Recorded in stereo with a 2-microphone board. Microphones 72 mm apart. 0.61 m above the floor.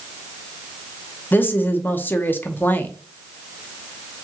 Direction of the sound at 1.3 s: 25° left (ahead or behind).